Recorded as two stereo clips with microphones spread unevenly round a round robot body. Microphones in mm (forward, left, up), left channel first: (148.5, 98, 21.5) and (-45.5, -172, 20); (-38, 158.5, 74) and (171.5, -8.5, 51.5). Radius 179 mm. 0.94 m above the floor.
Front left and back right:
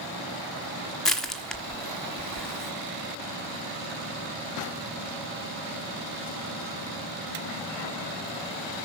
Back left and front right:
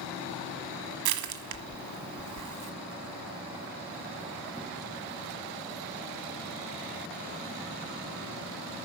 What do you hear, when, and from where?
1.1 s crushing: 35° right, 1.3 m